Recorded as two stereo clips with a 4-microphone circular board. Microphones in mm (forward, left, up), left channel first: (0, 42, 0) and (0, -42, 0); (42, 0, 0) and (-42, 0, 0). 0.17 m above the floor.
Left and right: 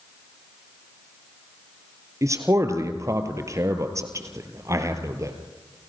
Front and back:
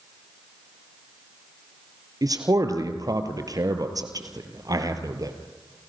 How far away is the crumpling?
No crumpling in this recording.